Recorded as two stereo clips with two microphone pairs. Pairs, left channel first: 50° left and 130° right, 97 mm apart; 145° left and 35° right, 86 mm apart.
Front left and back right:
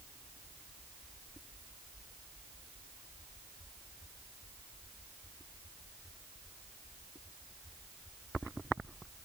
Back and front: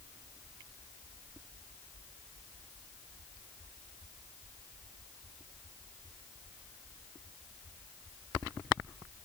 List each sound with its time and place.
Only background noise.